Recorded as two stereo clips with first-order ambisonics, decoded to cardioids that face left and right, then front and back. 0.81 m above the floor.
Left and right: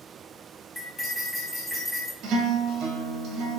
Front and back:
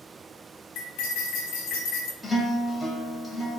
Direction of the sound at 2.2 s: 85° right.